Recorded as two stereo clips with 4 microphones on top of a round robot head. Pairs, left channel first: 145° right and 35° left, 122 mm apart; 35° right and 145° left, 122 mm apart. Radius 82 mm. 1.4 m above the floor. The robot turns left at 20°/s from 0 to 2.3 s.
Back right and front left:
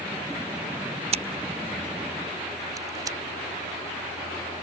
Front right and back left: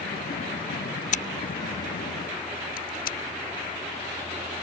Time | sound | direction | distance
1.1 | scissors | 5° right | ?